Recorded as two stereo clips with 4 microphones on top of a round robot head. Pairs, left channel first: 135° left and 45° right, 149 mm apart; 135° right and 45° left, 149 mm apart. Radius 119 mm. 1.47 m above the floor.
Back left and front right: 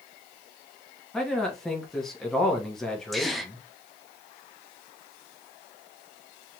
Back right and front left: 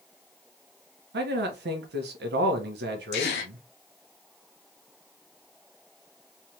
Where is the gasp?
140° right, 0.7 m.